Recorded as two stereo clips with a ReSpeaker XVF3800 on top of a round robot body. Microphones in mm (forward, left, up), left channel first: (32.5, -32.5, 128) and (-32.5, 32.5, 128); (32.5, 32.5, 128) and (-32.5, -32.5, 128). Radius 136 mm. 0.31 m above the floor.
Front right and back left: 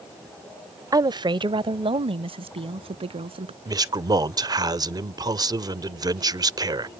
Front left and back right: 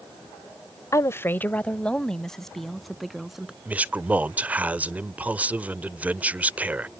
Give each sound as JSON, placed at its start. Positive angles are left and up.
{"t": 0.9, "sound": "a woman speaking", "azimuth_deg": 95}
{"t": 3.6, "sound": "a man speaking", "azimuth_deg": 155}